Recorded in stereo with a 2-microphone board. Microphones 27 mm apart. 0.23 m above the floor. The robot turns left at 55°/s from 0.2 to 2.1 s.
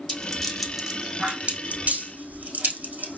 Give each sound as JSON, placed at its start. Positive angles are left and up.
{"t": 0.1, "sound": "a rattle", "side_deg": 25, "distance_m": 3.0}